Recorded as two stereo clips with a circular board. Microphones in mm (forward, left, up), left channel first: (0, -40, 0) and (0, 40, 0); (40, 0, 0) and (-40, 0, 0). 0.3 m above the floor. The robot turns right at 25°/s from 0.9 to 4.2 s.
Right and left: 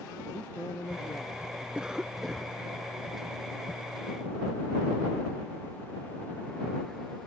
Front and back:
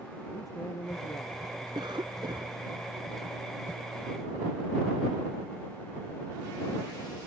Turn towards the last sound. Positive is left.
turn(degrees=-130)